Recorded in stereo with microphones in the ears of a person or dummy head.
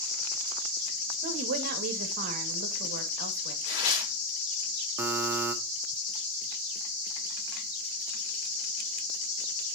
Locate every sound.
1.2 s a woman speaking: 60° right (ahead or behind), 2.5 m
3.6 s tearing paper: 70° left (ahead or behind), 3.5 m
5.0 s a buzzer: 20° right (ahead or behind), 1.5 m